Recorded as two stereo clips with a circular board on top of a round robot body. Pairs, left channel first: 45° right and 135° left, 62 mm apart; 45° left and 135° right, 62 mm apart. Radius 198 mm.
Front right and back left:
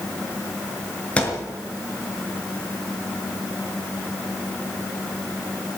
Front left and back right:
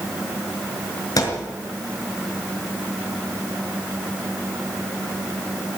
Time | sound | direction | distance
1.2 | a thud | 25° left | 5 m